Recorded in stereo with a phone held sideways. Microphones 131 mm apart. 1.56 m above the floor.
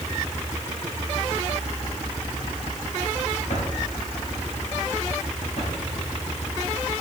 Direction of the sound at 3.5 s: 70° left (ahead or behind).